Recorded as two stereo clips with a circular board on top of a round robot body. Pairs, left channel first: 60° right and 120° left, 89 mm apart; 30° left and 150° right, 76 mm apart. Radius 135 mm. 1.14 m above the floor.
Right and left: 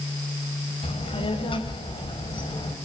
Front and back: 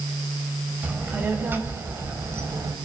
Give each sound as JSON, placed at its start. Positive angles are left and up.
{"t": 0.8, "sound": "a child speaking", "azimuth_deg": -80, "distance_m": 4.5}